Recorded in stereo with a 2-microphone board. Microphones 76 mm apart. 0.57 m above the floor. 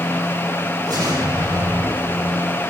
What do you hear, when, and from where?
0.9 s an explosion: 70° right (ahead or behind), 5 m